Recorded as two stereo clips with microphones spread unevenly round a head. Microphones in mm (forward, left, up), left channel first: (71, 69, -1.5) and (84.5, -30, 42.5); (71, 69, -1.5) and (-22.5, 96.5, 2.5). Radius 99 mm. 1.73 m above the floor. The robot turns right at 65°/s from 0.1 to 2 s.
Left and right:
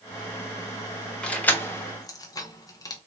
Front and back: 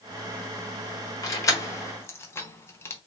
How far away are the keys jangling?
About 0.6 m.